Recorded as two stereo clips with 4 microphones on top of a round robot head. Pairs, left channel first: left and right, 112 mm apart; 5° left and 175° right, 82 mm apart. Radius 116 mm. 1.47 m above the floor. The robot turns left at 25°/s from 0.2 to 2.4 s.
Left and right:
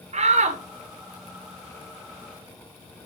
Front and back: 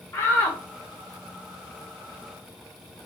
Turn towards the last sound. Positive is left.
turn(degrees=-120)